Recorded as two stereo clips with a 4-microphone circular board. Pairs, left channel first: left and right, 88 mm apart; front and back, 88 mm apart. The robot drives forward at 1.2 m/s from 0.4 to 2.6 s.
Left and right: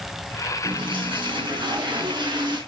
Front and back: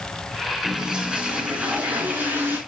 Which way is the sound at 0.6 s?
100° right.